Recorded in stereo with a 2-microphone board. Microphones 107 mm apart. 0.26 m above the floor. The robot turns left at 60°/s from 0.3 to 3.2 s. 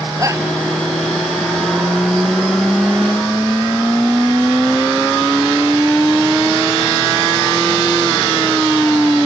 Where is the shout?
30° right (ahead or behind); by 0.5 s 20° right (ahead or behind).